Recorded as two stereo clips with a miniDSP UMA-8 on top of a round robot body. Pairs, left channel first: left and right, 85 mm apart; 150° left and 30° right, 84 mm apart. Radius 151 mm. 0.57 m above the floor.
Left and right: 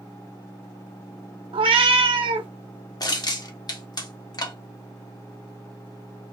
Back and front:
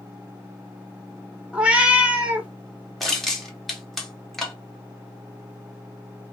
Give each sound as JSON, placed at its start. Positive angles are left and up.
{"t": 1.5, "sound": "a cat meowing", "azimuth_deg": -105, "distance_m": 0.5}
{"t": 3.0, "sound": "crushing", "azimuth_deg": 65, "distance_m": 1.6}